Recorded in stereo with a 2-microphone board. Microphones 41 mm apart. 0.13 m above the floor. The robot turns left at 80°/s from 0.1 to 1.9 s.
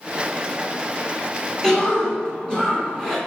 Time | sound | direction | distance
1.6 | a cough | 10° left (ahead or behind) | 1.1 m